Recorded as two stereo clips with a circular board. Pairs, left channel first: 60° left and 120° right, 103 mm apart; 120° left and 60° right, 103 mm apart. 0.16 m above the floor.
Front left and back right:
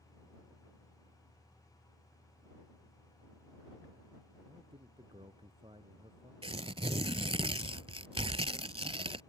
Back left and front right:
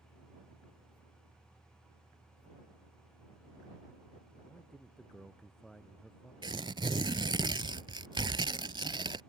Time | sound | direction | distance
4.5 | a man speaking | 155° right | ?
6.4 | tearing paper | 100° right | ?